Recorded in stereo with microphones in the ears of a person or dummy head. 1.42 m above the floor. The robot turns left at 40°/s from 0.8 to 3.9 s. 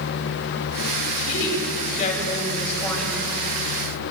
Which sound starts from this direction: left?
A woman speaking, at 1.2 s.